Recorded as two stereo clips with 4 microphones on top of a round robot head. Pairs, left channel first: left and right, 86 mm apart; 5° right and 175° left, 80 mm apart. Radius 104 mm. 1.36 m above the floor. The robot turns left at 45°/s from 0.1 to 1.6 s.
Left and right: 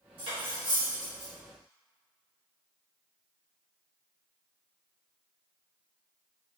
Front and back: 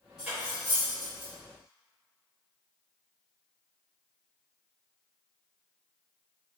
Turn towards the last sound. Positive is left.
turn(degrees=-160)